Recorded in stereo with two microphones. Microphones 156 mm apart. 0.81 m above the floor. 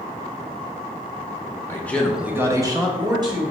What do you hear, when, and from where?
1.7 s a man speaking: 15° left (ahead or behind), 0.6 m; by 3.4 s 25° right (ahead or behind), 1.3 m